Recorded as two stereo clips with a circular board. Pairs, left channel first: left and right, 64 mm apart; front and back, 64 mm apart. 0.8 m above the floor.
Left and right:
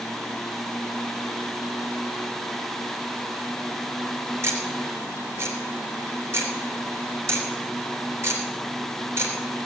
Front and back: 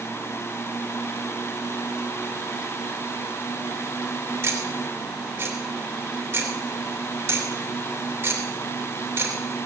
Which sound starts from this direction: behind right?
Ticking, at 4.4 s.